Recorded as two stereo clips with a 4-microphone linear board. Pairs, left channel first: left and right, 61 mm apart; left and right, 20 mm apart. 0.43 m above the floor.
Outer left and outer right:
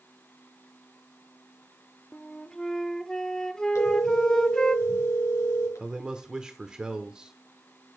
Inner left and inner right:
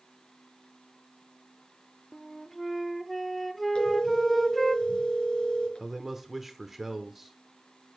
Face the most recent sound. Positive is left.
turn(degrees=-15)  # may be behind; listen again after turning